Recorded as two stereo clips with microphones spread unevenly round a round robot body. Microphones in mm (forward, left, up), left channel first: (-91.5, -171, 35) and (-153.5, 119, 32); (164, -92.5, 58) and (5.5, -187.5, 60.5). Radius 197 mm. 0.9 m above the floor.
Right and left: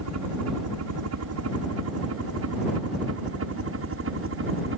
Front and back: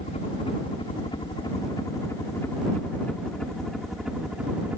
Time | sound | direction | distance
0.0 | a helicopter | 90° left | ?